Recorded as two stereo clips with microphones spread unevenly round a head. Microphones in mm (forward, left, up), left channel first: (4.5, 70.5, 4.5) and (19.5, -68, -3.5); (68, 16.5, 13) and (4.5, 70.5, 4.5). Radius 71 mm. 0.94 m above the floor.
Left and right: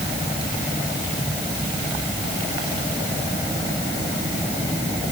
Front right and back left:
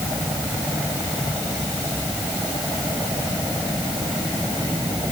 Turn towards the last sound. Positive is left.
No sound to turn to.